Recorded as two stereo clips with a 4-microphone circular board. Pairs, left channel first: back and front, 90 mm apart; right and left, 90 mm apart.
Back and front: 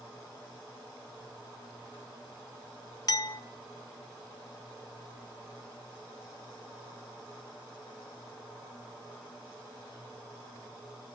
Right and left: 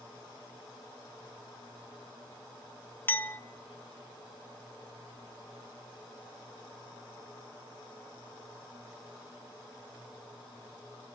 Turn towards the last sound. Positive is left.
turn(degrees=-150)